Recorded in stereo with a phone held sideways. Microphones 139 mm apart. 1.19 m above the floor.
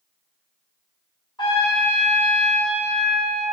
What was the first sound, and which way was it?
A trumpet, 30° left (ahead or behind).